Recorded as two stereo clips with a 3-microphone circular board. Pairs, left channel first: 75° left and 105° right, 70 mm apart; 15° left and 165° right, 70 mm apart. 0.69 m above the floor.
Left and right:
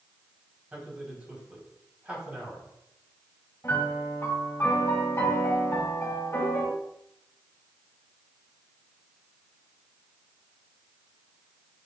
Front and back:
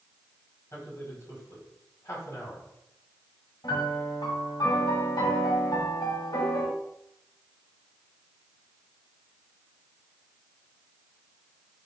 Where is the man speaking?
35° right, 3.5 m.